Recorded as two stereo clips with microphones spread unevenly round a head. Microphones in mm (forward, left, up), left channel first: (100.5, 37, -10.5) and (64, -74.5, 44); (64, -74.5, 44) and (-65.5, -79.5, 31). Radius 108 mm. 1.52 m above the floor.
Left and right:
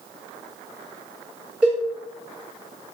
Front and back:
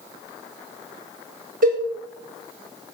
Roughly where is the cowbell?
Behind.